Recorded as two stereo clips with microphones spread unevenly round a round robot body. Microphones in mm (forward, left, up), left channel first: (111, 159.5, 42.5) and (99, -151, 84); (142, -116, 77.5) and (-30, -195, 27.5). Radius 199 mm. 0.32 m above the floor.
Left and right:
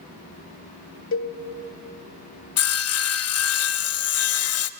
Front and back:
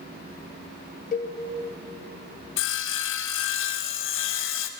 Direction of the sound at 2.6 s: 50° left.